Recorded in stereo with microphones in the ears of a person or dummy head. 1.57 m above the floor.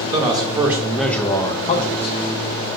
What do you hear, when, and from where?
0.1 s a man speaking: 25° right (ahead or behind), 0.9 m; by 2.2 s 60° left (ahead or behind), 0.6 m